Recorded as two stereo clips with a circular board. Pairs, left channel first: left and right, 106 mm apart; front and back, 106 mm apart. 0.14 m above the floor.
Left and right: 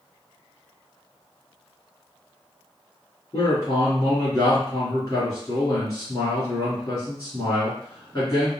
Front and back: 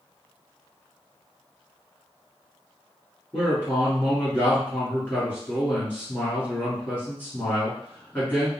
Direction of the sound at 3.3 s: 60° left.